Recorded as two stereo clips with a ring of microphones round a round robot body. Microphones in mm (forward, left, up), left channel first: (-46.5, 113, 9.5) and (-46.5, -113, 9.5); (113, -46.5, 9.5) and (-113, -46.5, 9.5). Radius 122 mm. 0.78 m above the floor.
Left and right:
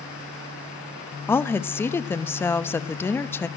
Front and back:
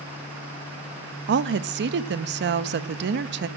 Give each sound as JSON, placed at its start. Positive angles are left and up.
{"t": 1.3, "sound": "a woman speaking", "azimuth_deg": 170, "distance_m": 0.5}